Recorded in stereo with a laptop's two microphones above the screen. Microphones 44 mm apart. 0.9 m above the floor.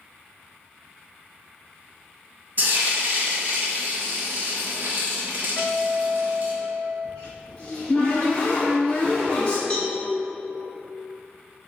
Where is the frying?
45° right (ahead or behind), 1.1 m.